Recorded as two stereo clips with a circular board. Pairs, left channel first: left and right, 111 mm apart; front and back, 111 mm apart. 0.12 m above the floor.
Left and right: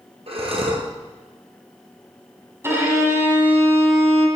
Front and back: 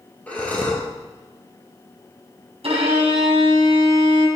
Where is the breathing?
75° right, 2.5 m.